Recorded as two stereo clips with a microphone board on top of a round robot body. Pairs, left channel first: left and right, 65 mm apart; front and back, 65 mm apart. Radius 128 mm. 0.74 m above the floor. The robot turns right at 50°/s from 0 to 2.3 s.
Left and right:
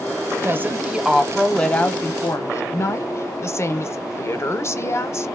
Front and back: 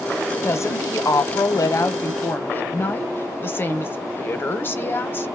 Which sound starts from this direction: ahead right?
A woman speaking, at 0.4 s.